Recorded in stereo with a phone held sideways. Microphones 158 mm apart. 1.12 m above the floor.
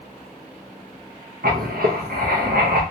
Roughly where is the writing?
Right.